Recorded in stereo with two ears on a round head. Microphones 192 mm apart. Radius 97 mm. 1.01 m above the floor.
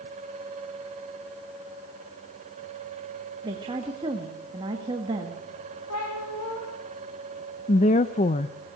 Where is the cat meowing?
80° left, 6 m.